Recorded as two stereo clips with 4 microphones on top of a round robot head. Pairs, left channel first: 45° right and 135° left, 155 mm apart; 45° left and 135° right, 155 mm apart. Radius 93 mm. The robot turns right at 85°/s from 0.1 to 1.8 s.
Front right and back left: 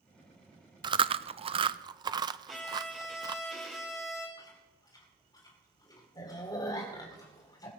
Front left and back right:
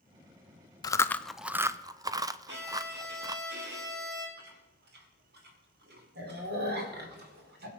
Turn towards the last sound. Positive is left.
turn(degrees=-115)